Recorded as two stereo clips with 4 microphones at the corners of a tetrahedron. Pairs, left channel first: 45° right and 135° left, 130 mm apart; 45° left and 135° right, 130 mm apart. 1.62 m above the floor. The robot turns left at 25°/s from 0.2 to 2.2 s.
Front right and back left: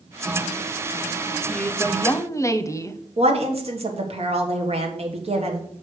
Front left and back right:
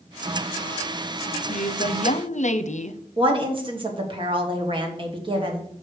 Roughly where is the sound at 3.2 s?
Behind.